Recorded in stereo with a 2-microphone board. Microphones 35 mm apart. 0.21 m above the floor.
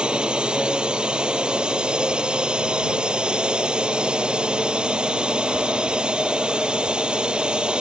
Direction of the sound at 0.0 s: 25° right (ahead or behind).